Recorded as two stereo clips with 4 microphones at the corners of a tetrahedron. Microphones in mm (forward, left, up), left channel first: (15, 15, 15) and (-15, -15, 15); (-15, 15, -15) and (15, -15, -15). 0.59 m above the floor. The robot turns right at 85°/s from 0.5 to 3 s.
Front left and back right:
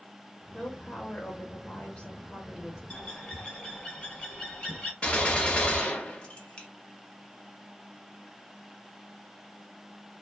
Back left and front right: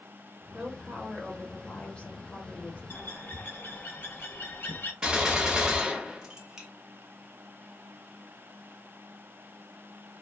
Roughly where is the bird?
Left.